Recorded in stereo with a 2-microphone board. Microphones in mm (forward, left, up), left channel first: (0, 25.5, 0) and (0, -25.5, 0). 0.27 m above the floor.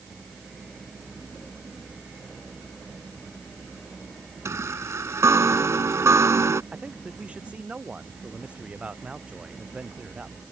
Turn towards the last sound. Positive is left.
turn(degrees=-25)  # may be behind; listen again after turning